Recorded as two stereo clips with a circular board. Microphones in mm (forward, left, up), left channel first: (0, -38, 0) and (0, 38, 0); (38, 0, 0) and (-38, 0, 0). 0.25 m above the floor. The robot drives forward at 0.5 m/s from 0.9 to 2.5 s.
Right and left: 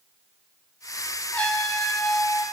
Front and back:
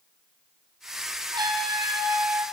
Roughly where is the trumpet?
Behind.